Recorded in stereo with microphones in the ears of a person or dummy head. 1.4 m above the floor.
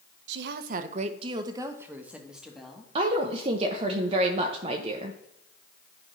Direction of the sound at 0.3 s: 65° right (ahead or behind).